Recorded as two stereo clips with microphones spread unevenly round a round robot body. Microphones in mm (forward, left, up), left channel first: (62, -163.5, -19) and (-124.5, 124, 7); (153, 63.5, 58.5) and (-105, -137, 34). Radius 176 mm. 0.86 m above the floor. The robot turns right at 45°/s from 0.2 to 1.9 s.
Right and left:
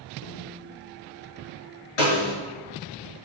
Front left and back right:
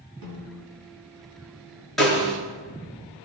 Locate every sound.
0.2 s a snare drum: 120° right, 7.5 m; by 0.7 s 100° right, 7.5 m
2.0 s a snare drum: 50° right, 4.5 m